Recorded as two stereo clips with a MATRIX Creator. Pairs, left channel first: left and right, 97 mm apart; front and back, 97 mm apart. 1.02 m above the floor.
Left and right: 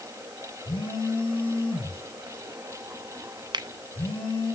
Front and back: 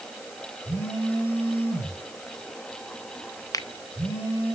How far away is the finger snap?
About 0.6 m.